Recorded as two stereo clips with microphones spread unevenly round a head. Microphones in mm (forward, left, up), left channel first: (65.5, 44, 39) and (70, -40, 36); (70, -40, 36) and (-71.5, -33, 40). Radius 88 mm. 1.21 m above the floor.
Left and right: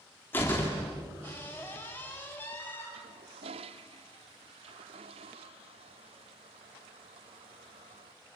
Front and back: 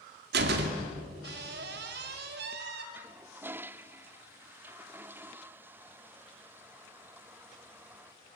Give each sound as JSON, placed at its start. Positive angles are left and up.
{"t": 0.3, "sound": "a door slam", "azimuth_deg": 170, "distance_m": 2.5}
{"t": 2.9, "sound": "a toilet flushing", "azimuth_deg": -105, "distance_m": 0.6}